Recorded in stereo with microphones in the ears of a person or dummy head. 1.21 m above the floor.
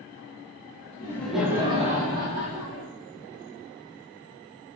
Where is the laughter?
15° left (ahead or behind), 1.1 m; by 2.9 s 70° right (ahead or behind), 1.9 m.